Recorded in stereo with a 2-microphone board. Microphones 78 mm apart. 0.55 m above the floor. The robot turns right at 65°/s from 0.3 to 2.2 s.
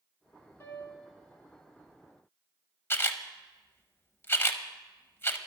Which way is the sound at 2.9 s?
30° left (ahead or behind).